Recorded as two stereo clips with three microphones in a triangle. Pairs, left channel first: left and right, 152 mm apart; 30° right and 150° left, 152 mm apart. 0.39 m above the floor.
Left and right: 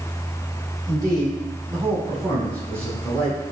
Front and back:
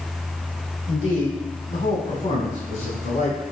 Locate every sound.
0.9 s a man speaking: 30° right, 2 m; by 3.4 s 15° right, 3 m